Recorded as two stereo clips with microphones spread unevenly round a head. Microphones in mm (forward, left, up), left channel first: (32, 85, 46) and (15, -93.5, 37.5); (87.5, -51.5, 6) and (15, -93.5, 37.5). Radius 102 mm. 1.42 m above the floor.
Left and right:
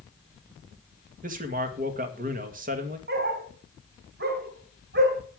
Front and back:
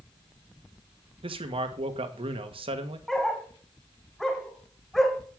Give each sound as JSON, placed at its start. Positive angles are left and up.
{"t": 1.2, "sound": "a man speaking", "azimuth_deg": -145, "distance_m": 1.9}
{"t": 3.1, "sound": "a dog barking", "azimuth_deg": -65, "distance_m": 3.0}